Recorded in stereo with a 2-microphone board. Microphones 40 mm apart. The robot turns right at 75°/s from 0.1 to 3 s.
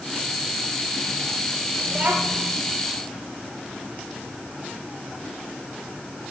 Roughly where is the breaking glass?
No breaking glass in this recording.